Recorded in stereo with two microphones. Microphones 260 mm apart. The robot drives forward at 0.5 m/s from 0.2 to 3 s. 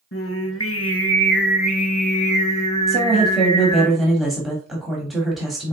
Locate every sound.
0.1 s singing: 55° left (ahead or behind), 0.6 m; by 3.9 s 20° left (ahead or behind), 1.4 m
2.9 s a woman speaking: centre (ahead or behind), 1.1 m